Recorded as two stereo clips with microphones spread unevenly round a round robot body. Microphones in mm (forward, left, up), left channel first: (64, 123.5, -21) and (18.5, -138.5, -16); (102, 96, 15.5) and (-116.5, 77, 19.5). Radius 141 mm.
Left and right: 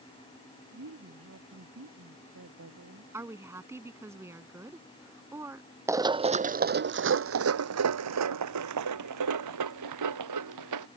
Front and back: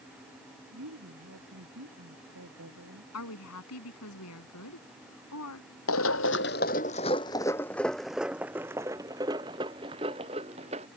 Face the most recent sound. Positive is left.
turn(degrees=-105)